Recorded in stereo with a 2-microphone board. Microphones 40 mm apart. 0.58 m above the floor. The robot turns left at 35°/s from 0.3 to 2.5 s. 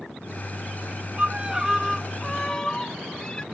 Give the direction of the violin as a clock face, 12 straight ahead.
5 o'clock.